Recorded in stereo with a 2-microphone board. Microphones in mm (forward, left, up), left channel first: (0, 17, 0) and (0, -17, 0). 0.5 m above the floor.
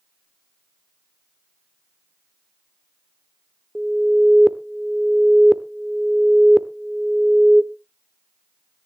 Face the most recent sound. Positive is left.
turn(degrees=-20)  # may be behind; listen again after turning